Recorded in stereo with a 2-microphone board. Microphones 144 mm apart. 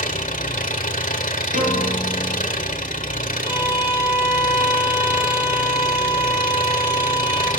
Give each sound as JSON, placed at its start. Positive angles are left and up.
{"t": 0.0, "sound": "an engine running", "side_deg": 60, "distance_m": 1.9}
{"t": 1.5, "sound": "a piano", "side_deg": -60, "distance_m": 8.5}
{"t": 3.4, "sound": "a violin", "side_deg": -15, "distance_m": 7.5}